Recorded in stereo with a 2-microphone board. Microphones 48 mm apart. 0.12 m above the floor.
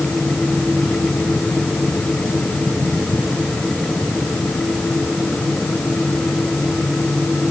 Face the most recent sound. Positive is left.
No sound to turn to.